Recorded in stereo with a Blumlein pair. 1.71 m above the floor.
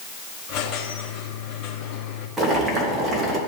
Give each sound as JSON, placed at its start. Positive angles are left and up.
{"t": 0.5, "sound": "a squeak", "azimuth_deg": 35, "distance_m": 2.5}
{"t": 2.4, "sound": "boiling", "azimuth_deg": -15, "distance_m": 3.0}